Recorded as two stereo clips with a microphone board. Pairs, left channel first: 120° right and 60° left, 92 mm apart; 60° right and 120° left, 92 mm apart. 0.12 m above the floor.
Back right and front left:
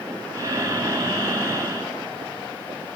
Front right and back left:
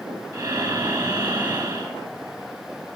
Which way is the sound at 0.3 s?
100° left.